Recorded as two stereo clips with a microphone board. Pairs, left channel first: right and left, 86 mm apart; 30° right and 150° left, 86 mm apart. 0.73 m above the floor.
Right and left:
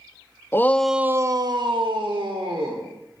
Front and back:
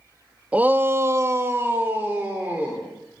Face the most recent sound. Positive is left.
turn(degrees=80)